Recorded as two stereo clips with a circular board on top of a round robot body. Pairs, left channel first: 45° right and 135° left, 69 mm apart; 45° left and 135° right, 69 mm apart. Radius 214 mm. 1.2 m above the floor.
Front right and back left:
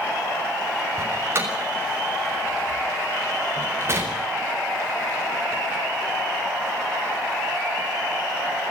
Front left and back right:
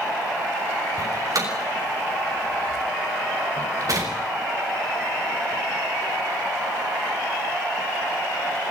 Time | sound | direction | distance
1.0 | a door slam | 170° right | 6.5 m